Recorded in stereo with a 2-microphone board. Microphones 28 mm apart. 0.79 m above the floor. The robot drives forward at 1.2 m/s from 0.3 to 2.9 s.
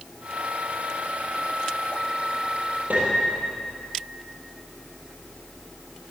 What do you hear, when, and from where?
2.9 s a piano: 65° right (ahead or behind), 8.5 m